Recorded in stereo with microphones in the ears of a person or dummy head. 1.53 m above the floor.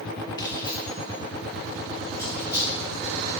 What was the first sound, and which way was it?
Keys jangling, 25° left (ahead or behind).